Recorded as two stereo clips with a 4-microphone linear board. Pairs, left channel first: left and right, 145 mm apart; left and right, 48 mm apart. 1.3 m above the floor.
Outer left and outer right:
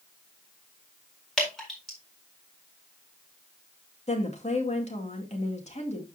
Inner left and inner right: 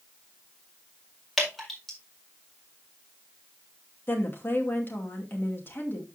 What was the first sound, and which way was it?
Dripping, 5° left (ahead or behind).